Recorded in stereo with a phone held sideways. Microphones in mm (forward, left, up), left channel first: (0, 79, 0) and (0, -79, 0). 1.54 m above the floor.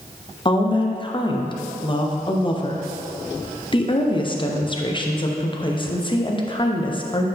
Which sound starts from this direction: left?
A woman speaking, at 0.5 s.